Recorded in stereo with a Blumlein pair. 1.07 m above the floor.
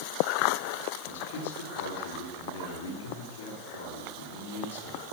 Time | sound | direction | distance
1.0 | a man speaking | 60° left | 3.5 m